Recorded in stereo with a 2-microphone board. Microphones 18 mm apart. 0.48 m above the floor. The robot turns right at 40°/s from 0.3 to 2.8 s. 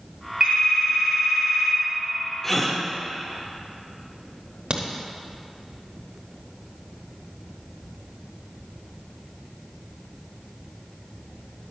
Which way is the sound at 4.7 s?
60° right (ahead or behind).